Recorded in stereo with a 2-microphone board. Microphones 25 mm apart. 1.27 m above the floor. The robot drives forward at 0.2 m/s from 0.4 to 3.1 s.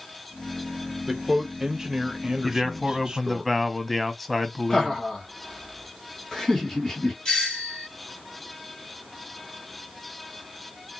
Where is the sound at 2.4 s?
5° right (ahead or behind), 0.6 m.